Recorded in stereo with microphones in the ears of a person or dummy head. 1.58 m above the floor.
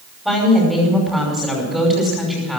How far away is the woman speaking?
About 5.5 m.